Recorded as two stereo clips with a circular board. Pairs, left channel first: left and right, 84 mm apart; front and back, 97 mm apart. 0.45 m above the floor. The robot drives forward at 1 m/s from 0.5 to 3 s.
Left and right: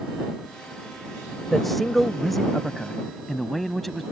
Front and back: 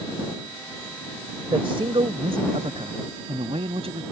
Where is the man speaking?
Straight behind.